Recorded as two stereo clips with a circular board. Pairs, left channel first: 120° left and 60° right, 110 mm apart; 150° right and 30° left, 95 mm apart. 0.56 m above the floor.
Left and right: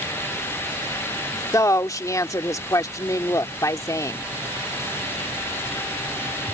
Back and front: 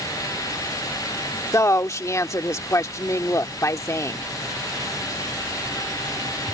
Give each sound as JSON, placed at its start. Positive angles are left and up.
{"t": 1.5, "sound": "a woman speaking", "azimuth_deg": 170}